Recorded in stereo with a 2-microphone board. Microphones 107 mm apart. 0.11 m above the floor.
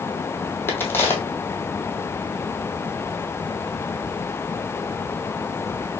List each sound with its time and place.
0.7 s a crack: 20° left (ahead or behind), 1.0 m